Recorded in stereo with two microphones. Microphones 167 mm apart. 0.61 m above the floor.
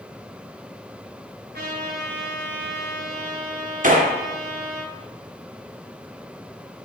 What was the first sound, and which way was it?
A trumpet, 80° right.